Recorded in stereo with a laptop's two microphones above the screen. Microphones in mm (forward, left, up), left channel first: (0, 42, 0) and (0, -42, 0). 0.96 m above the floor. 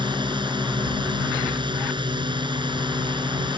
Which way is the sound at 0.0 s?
70° right (ahead or behind).